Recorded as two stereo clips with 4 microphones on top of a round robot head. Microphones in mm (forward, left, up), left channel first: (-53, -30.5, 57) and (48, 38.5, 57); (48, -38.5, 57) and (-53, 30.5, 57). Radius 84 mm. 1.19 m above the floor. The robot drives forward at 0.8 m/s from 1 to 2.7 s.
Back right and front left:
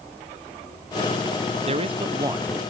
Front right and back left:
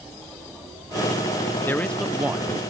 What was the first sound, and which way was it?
A man speaking, 35° left.